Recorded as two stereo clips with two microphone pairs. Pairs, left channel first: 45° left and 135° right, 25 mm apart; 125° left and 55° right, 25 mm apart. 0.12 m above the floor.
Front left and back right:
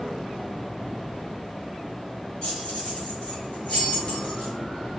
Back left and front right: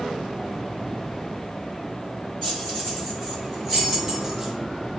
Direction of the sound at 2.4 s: 70° left.